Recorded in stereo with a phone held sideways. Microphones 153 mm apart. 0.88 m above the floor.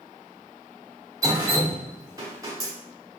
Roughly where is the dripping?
Right.